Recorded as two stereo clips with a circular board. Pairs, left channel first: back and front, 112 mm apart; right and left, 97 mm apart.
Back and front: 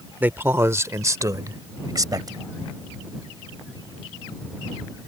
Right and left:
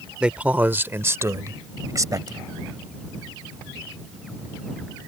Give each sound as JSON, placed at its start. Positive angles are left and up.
{"t": 0.2, "sound": "a man speaking", "azimuth_deg": 30}